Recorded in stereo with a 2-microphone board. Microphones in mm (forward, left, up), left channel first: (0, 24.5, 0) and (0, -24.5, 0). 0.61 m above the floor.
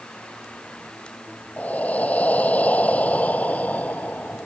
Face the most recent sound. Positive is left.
turn(degrees=30)  # may be behind; listen again after turning